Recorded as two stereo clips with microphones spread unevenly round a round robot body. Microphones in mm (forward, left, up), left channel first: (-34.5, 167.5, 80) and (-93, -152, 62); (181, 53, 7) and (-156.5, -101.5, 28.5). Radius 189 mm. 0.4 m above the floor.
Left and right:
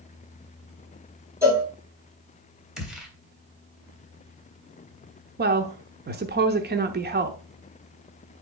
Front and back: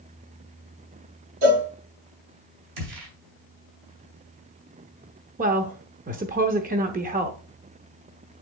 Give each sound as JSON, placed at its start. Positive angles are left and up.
{"t": 1.4, "sound": "a cowbell", "azimuth_deg": 180, "distance_m": 5.5}
{"t": 2.8, "sound": "a gunshot", "azimuth_deg": 175, "distance_m": 3.0}
{"t": 5.4, "sound": "a woman speaking", "azimuth_deg": -100, "distance_m": 0.9}